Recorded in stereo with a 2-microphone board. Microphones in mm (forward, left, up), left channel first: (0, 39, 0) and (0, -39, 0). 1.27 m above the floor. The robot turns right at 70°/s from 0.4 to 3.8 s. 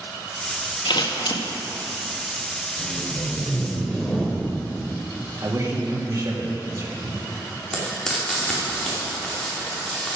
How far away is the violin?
No violin in this recording.